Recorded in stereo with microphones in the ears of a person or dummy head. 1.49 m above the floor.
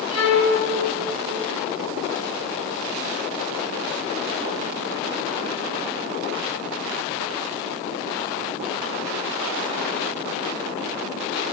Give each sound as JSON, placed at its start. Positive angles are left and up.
{"t": 0.1, "sound": "a violin", "side_deg": 80, "distance_m": 7.5}